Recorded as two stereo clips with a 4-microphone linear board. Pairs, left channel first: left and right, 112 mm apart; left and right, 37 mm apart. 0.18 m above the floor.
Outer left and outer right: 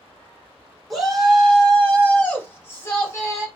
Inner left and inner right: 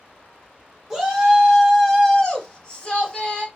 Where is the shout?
Centre (ahead or behind), 2.5 m; by 3.5 s 35° left (ahead or behind), 2.0 m.